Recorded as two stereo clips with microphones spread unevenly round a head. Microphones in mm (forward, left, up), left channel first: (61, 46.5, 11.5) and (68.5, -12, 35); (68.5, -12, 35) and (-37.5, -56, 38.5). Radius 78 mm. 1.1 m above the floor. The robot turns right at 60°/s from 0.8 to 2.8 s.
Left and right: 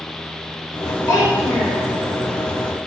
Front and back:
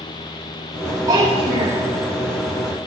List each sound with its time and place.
1.1 s a child speaking: 140° left, 4.5 m; by 1.8 s 175° right, 4.5 m